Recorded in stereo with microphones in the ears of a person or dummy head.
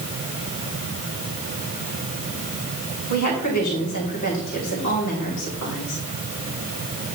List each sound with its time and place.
3.1 s a woman speaking: 85° left, 3 m